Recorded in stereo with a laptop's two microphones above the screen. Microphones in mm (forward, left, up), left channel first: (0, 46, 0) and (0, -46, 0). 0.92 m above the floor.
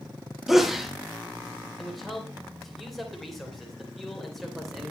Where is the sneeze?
Centre (ahead or behind), 1.8 m.